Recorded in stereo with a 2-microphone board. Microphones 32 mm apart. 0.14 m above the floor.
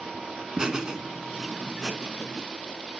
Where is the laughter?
20° right (ahead or behind), 1.1 m; by 2.4 s 15° right (ahead or behind), 1.4 m.